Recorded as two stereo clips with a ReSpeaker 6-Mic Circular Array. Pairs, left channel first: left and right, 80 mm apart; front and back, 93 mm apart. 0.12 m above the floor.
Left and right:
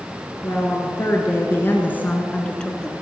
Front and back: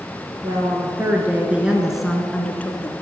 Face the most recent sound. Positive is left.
turn(degrees=15)